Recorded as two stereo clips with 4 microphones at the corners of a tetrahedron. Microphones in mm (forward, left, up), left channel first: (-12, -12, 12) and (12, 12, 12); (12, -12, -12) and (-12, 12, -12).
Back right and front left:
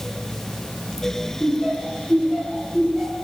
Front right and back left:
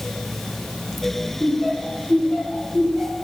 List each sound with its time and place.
1.4 s laughter: 165° left, 4 m; by 3.1 s 130° left, 3.5 m